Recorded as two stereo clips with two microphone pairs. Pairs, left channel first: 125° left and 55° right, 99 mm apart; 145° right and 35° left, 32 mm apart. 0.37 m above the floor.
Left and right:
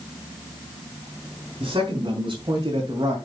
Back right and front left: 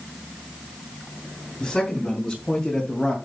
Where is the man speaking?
85° right, 4 m; by 3.2 s 80° right, 2.5 m.